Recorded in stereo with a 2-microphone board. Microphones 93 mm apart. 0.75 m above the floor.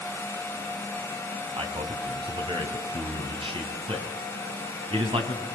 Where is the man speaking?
75° right (ahead or behind), 4.5 m.